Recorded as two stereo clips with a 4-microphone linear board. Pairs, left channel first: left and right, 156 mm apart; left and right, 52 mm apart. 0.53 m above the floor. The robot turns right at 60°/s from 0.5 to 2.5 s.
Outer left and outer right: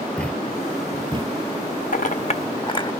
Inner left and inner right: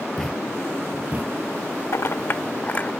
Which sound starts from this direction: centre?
A thud, at 0.2 s.